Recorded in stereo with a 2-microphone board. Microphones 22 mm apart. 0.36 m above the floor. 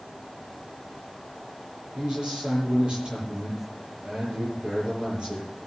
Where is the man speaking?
45° right (ahead or behind), 9 m.